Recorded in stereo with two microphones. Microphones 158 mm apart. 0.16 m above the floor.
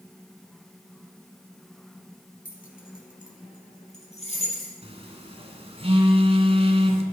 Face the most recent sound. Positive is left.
turn(degrees=-40)  # may be behind; listen again after turning